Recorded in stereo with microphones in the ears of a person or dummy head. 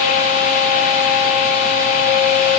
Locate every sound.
Only background noise.